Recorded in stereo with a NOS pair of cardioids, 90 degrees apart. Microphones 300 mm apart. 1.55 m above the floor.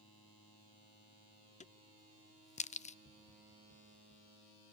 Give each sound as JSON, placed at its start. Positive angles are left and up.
{"t": 1.6, "sound": "a crack", "azimuth_deg": 25, "distance_m": 0.8}
{"t": 3.0, "sound": "tapping", "azimuth_deg": 55, "distance_m": 7.5}